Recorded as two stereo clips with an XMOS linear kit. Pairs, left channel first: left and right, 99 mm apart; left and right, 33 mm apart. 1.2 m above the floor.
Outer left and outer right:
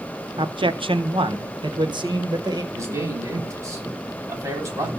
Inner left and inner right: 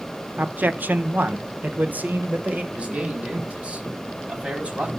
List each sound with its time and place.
0.4 s a man speaking: 55° right (ahead or behind), 1.0 m; by 2.6 s 45° right (ahead or behind), 1.9 m
2.7 s a man speaking: 30° right (ahead or behind), 3.5 m